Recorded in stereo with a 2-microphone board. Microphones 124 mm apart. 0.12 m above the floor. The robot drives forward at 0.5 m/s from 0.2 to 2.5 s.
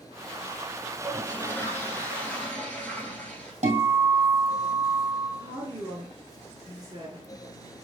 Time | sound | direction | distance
0.9 | a toilet flushing | 20° left (ahead or behind) | 0.7 m
3.6 | a guitar | 70° right (ahead or behind) | 1.7 m
5.4 | a woman speaking | 35° right (ahead or behind) | 1.9 m